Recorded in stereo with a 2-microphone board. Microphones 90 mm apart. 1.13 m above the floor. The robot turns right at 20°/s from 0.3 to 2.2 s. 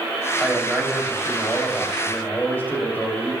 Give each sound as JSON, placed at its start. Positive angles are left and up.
{"t": 0.4, "sound": "a man speaking", "azimuth_deg": -10, "distance_m": 3.0}